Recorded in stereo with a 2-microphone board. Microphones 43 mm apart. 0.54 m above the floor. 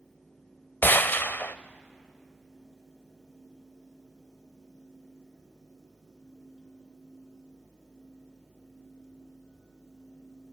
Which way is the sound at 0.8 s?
50° left (ahead or behind).